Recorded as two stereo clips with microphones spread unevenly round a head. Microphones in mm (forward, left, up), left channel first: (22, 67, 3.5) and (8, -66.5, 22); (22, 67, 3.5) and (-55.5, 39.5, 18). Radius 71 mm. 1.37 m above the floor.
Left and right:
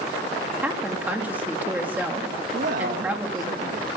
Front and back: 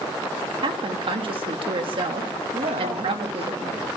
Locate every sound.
0.6 s a woman speaking: 175° right, 2.5 m
2.5 s a man speaking: 130° right, 2.5 m